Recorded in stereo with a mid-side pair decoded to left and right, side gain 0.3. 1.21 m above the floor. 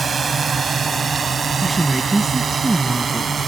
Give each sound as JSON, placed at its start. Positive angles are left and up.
{"t": 0.0, "sound": "a drone", "azimuth_deg": -60}
{"t": 1.6, "sound": "a woman speaking", "azimuth_deg": -30}